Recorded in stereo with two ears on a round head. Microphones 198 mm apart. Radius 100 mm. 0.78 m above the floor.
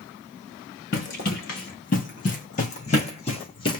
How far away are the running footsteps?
About 3.5 m.